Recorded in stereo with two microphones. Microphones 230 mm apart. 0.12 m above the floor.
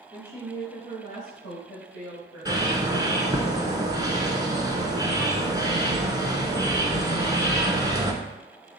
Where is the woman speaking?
20° left (ahead or behind), 1.4 m; by 2.6 s 50° left (ahead or behind), 3 m.